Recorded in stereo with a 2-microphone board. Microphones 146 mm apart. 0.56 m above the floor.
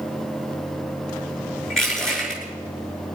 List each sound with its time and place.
1.7 s crushing: 5° left (ahead or behind), 8 m